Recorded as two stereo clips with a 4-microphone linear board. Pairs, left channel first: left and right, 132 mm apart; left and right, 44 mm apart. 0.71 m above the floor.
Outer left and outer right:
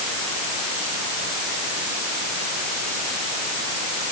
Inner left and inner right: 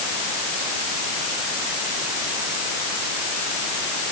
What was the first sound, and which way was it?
Only background noise.